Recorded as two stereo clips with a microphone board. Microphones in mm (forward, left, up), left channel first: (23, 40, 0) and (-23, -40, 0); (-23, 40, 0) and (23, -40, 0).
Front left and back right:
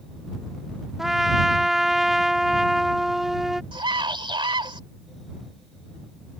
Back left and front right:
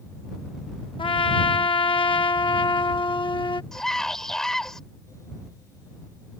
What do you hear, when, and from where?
1.0 s a trumpet: 155° left
3.7 s a scream: 155° right